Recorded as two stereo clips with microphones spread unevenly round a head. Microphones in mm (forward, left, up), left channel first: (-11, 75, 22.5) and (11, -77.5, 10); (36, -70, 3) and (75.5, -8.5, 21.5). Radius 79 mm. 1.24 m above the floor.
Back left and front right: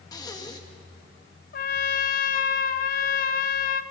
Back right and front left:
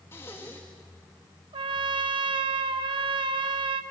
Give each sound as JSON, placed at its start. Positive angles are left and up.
{"t": 0.1, "sound": "breathing", "azimuth_deg": 165, "distance_m": 1.8}
{"t": 1.5, "sound": "a trumpet", "azimuth_deg": 60, "distance_m": 1.1}